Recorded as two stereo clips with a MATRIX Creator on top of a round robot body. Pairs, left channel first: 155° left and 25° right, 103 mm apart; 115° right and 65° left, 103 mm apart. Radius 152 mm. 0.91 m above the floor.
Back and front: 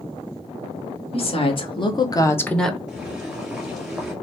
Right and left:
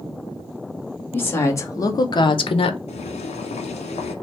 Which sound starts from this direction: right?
Boiling, at 2.9 s.